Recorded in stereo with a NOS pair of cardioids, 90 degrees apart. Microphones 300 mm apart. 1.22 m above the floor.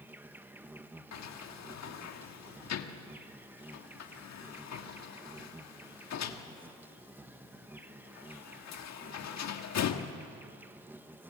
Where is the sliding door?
60° left, 1.6 m.